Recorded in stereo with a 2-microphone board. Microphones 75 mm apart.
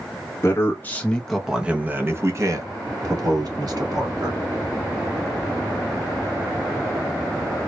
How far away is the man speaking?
About 1.1 m.